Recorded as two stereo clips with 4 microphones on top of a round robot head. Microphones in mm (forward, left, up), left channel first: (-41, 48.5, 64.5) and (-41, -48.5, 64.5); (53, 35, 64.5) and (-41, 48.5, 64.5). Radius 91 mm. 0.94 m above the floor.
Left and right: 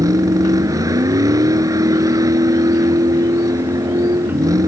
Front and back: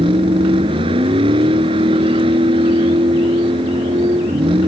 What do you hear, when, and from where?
0.0 s a vehicle: 145° right